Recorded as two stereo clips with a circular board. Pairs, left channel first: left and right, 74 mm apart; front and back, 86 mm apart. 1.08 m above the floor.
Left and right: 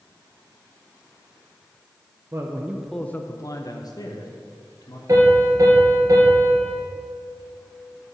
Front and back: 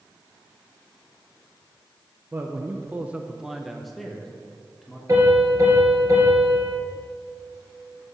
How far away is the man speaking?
About 0.7 m.